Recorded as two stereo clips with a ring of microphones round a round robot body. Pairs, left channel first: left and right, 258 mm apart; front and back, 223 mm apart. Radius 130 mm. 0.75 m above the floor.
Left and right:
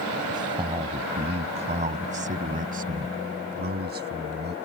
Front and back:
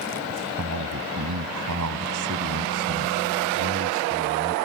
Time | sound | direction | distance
0.3 | a man speaking | 165° right | ?